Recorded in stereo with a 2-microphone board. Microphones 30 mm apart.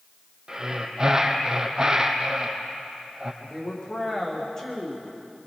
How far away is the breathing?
About 2.5 m.